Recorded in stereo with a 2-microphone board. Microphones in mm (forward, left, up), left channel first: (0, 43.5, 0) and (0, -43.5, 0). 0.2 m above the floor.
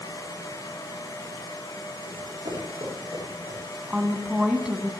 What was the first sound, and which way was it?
Running footsteps, 60° right (ahead or behind).